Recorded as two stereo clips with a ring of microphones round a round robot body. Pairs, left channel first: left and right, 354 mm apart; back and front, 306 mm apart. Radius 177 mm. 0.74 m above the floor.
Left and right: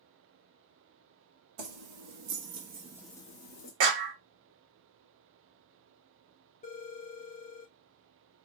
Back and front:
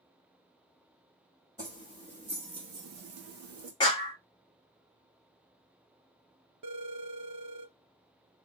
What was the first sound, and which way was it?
Keys jangling, 80° right.